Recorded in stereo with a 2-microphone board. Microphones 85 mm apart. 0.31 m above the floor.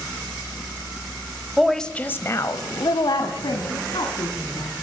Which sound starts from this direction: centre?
A woman speaking, at 1.6 s.